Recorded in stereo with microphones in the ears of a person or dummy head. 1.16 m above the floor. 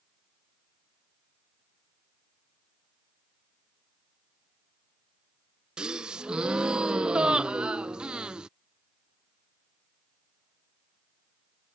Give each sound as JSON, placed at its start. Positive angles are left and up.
{"t": 5.8, "sound": "a gasp", "side_deg": -5}